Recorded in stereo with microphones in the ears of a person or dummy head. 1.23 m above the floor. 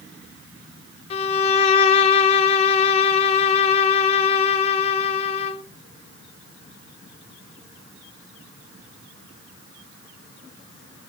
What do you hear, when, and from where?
1.1 s a violin: 35° left (ahead or behind), 0.7 m